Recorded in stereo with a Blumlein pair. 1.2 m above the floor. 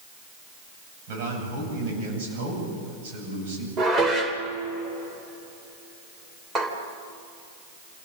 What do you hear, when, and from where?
1.1 s a man speaking: 50° right, 8.5 m
3.8 s dishes clattering: 15° right, 3 m